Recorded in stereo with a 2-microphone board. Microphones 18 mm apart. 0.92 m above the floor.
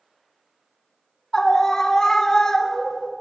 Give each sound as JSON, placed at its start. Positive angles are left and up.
{"t": 1.3, "sound": "a scream", "side_deg": 35, "distance_m": 1.2}